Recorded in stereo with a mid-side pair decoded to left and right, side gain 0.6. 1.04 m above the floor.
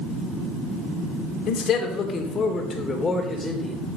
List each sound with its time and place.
1.5 s a man speaking: 55° left, 3 m; by 3.8 s 20° left, 4 m